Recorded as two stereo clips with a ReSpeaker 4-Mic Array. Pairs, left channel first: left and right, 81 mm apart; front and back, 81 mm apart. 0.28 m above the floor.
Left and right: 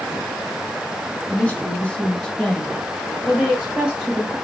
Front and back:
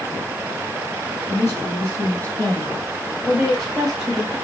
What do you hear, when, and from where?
1.3 s a woman speaking: 35° left, 1.8 m; by 4.3 s 110° right, 1.6 m